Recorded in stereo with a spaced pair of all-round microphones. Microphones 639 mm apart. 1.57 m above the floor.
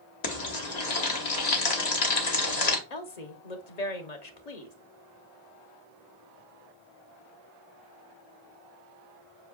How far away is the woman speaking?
About 1.1 m.